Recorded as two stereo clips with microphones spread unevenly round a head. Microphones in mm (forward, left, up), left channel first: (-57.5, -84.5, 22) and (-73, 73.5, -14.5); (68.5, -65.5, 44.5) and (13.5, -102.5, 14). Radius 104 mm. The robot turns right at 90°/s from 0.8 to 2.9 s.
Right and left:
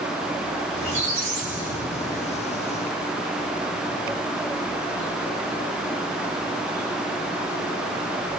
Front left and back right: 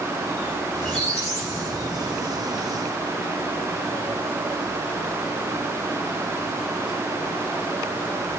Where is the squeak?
40° left, 1.3 m; by 2.4 s 170° right, 1.3 m.